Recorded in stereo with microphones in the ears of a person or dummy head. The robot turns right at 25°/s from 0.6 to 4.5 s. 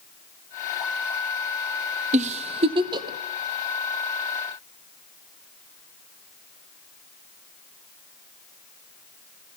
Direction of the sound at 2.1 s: 30° right (ahead or behind).